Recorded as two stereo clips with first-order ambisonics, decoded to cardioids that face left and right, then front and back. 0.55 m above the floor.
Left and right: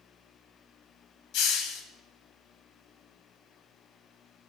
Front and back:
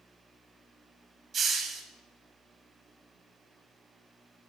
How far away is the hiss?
About 0.7 m.